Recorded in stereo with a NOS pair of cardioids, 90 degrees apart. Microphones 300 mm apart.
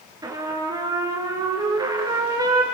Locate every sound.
0.2 s a trumpet: 15° right, 6 m